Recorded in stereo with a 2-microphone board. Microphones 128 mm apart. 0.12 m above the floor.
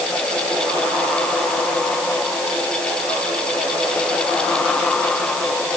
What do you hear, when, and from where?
Only background noise.